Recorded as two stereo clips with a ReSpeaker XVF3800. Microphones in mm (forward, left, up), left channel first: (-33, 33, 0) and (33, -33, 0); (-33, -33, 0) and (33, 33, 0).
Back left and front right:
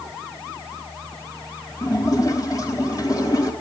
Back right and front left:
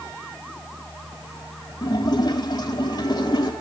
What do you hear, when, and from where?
1.8 s a splash: 175° right, 3.5 m